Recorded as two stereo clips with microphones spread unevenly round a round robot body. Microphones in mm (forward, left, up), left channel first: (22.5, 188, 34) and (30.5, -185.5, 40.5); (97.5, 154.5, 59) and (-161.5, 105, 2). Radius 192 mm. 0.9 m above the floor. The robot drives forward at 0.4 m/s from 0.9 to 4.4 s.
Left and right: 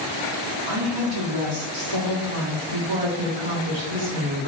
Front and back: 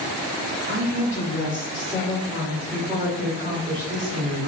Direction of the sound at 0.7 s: 60° right.